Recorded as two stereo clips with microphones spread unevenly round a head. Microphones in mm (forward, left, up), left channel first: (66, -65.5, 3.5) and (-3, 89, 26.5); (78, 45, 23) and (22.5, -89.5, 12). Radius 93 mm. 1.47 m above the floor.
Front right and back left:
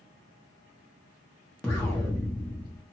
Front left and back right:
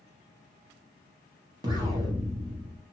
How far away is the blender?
I don't hear a blender.